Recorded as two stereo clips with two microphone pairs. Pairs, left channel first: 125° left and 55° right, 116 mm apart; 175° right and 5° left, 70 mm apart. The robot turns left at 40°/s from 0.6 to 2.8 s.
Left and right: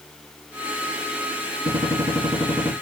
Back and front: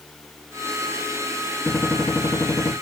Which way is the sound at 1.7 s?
95° right.